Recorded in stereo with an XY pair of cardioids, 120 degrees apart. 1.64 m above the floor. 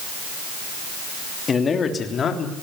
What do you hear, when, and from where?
1.5 s a man speaking: 35° left, 3 m; by 2.5 s 45° left, 4 m